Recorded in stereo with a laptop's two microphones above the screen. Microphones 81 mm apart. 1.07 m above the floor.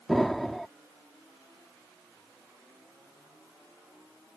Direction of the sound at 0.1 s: Centre (ahead or behind).